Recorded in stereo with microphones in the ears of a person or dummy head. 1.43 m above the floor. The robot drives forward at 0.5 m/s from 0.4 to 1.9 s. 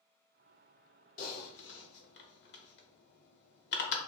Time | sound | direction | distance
1.2 | typing on a keyboard | 45° left (ahead or behind) | 0.6 m